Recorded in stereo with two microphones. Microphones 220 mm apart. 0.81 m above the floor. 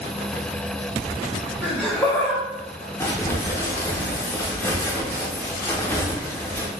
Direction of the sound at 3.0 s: 10° left (ahead or behind).